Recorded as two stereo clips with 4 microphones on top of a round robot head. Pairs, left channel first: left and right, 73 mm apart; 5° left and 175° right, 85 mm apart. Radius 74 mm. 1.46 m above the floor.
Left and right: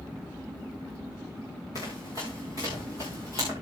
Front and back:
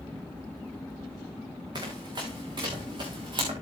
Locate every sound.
1.8 s running footsteps: 145° left, 7.5 m; by 3.5 s 155° left, 7.5 m